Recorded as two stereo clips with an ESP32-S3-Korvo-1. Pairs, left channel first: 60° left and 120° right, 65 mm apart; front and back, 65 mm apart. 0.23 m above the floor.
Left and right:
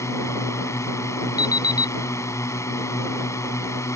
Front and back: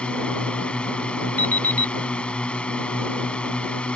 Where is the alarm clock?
60° left.